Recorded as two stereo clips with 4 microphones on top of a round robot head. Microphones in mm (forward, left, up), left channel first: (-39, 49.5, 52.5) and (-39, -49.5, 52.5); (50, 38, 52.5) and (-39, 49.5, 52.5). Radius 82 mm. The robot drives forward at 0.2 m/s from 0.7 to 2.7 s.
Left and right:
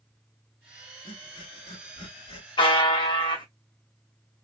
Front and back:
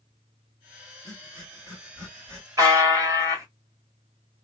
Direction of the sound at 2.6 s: 120° left.